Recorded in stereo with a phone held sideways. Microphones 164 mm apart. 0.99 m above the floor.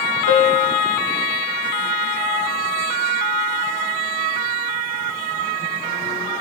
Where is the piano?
50° left (ahead or behind), 1.3 m.